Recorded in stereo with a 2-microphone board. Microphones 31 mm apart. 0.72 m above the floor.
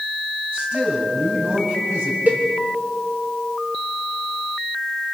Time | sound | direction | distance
0.5 | a man speaking | 70° right (ahead or behind) | 6 m
2.3 | a cowbell | 65° right (ahead or behind) | 2.5 m